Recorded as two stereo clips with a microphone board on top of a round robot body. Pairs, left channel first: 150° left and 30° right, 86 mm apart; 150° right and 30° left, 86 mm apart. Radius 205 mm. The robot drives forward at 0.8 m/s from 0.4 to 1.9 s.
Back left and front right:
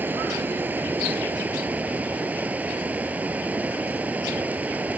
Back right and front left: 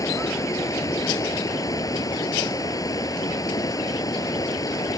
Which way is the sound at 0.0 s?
100° right.